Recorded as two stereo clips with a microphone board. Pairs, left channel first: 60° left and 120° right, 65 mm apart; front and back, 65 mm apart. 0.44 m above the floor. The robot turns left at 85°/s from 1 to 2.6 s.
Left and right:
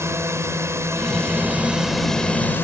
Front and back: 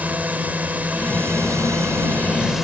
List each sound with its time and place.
0.0 s a drone: 125° right; by 2.6 s 100° left